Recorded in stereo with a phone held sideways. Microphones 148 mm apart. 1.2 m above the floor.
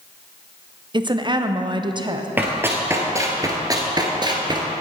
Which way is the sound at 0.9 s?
30° right (ahead or behind).